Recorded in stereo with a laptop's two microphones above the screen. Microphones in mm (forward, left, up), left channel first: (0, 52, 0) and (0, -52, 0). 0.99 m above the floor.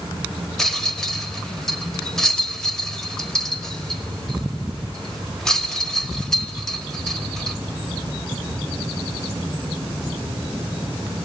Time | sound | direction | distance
0.6 | a rattle | 5° left (ahead or behind) | 1.4 m